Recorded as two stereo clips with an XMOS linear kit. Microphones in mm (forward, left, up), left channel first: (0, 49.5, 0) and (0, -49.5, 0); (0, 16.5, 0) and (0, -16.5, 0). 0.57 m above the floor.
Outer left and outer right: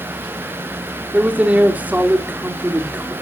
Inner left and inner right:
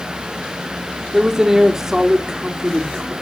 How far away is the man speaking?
About 1.7 m.